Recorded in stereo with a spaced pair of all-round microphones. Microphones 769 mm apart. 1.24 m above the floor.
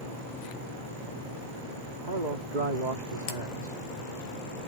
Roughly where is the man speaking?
Right.